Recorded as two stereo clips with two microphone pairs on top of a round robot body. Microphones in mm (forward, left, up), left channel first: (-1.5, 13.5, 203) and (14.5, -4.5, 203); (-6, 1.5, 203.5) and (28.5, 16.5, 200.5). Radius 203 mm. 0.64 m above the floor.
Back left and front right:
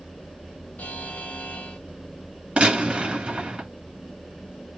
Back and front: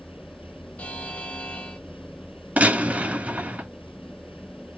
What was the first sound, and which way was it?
A buzzer, 150° left.